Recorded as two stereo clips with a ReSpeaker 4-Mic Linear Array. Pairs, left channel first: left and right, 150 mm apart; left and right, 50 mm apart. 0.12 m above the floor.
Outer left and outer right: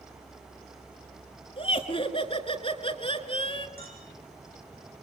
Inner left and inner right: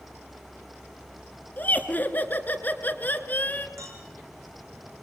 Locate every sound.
1.6 s laughter: 40° left (ahead or behind), 1.5 m
3.8 s a clink: 80° right, 4.5 m